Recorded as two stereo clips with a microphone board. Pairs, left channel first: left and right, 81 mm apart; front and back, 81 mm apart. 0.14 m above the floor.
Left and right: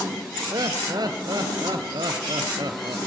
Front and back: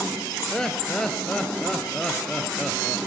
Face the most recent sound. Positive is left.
turn(degrees=-80)